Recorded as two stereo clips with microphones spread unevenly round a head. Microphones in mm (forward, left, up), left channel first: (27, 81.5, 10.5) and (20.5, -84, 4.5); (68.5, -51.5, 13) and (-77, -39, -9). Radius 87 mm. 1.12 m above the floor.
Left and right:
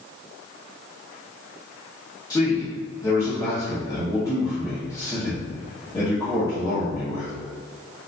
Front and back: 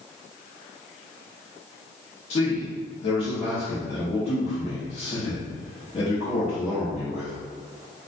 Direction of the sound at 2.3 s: 25° left.